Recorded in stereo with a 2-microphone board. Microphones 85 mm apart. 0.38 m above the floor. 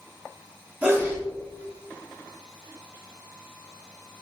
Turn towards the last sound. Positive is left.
turn(degrees=-20)  # may be behind; listen again after turning